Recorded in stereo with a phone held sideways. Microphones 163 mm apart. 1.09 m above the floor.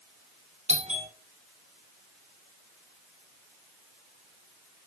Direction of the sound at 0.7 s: 45° right (ahead or behind).